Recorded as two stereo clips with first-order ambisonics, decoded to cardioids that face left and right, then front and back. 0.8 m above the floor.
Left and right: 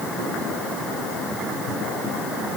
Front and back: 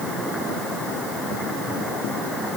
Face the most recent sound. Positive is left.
No sound to turn to.